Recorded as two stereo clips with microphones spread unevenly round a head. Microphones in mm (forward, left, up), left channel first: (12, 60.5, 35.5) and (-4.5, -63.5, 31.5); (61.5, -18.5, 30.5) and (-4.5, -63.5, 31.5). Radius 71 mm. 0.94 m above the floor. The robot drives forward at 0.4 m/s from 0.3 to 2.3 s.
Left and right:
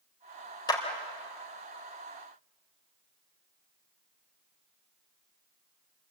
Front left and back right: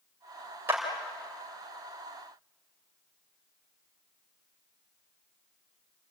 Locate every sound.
0.7 s a clap: 145° left, 3 m